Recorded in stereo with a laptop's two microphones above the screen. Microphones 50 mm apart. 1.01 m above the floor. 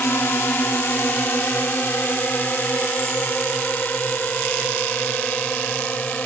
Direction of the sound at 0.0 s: 50° left (ahead or behind).